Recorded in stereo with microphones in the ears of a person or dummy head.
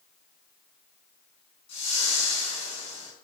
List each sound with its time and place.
1.7 s a whoosh: 35° left (ahead or behind), 7 m